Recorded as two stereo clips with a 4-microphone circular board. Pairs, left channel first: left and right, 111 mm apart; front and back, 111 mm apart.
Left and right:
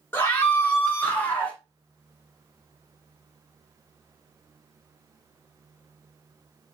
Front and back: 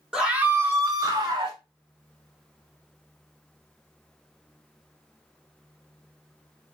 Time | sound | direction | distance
0.1 | a scream | 110° left | 1.1 m